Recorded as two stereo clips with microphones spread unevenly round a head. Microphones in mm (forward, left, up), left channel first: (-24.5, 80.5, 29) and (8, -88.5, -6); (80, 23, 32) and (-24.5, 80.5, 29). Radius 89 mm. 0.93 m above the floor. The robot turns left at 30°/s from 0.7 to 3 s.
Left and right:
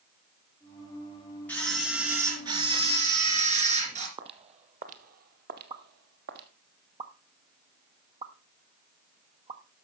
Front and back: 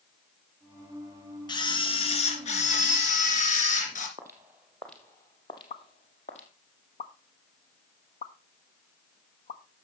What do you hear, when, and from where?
1.5 s a camera shutter: 25° left, 2.5 m; by 4.1 s 20° right, 2.5 m
4.2 s footsteps: 140° right, 1.2 m; by 6.5 s 45° right, 1.4 m
5.7 s a pop: 25° right, 1.1 m